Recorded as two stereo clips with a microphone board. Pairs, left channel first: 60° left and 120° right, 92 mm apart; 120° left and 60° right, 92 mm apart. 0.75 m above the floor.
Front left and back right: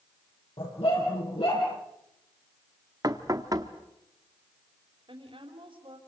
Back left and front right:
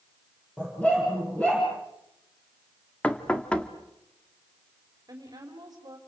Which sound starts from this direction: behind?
Knocking, at 3.0 s.